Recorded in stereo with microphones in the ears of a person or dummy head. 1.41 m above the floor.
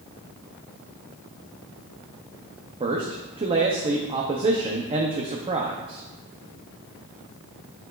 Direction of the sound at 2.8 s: 20° right (ahead or behind).